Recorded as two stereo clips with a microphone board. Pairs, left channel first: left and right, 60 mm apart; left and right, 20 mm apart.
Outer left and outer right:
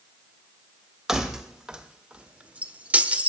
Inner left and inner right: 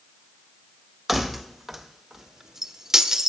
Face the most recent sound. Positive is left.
turn(degrees=-25)  # may be behind; listen again after turning